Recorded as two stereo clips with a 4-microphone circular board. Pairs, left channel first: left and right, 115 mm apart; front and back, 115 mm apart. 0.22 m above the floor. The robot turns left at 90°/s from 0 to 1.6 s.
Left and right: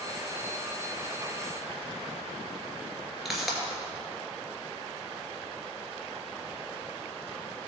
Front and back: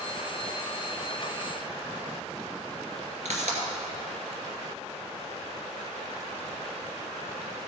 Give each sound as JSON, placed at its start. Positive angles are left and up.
{"t": 3.2, "sound": "a pop", "azimuth_deg": 180, "distance_m": 2.5}